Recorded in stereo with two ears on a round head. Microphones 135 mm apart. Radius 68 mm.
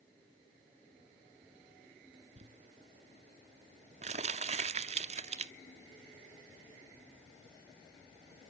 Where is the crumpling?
45° right (ahead or behind), 0.6 m.